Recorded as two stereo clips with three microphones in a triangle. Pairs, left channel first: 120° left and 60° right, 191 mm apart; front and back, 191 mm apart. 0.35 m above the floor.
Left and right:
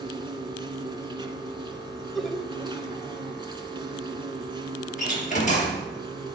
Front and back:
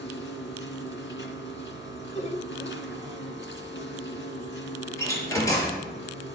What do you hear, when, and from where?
0.0 s an insect: 5° left, 1.6 m
2.1 s laughter: 35° left, 1.2 m
5.0 s a door slam: 75° left, 4.5 m